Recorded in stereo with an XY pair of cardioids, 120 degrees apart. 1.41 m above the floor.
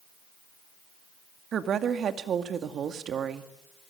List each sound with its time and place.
1.5 s a woman speaking: 50° right, 2.5 m